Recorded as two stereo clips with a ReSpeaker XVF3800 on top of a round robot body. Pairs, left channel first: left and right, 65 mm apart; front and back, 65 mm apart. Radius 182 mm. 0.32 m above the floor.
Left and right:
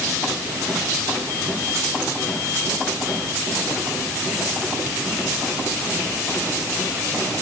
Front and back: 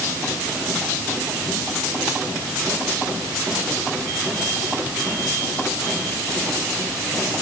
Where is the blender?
No blender in this recording.